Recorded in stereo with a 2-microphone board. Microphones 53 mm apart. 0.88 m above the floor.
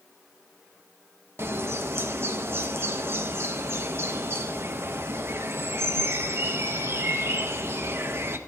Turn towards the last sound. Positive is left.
turn(degrees=-50)  # may be behind; listen again after turning